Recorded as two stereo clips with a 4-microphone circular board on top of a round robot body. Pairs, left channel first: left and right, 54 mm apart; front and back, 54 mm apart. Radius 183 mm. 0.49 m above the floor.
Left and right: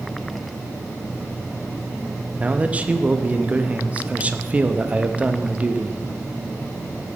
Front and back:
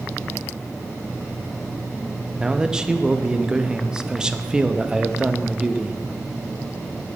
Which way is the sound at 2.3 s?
115° right.